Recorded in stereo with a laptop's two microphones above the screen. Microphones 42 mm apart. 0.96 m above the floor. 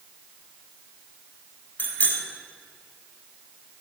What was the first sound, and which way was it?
A bicycle bell, 35° left (ahead or behind).